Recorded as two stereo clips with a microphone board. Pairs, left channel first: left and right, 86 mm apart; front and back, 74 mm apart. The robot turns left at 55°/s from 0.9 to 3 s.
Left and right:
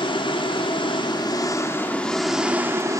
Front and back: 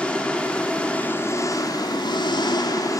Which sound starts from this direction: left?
An engine running, at 0.0 s.